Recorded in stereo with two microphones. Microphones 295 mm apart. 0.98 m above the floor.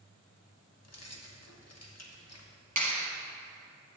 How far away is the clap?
About 1.0 m.